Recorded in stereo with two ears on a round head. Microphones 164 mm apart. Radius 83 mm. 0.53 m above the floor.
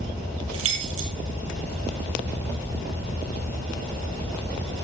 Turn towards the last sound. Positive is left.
turn(degrees=-85)